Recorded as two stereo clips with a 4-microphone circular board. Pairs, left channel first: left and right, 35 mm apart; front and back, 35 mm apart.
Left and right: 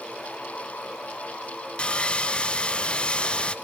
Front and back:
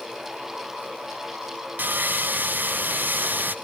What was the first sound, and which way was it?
Sawing, 150° left.